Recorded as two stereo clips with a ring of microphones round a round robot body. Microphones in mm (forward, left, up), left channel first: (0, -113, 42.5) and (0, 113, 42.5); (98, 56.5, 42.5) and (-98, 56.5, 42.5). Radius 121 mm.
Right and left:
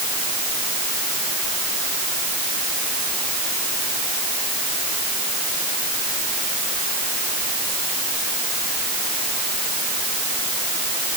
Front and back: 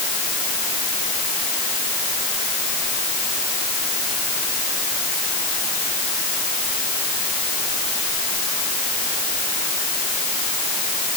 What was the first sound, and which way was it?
Only background noise.